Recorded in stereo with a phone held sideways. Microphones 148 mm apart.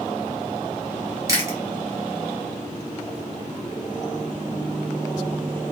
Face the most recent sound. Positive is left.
turn(degrees=-25)  # may be behind; listen again after turning